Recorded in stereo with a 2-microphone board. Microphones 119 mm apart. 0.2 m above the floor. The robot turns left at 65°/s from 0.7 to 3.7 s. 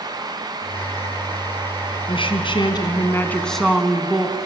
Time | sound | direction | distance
2.1 | a woman speaking | 100° left | 2.5 m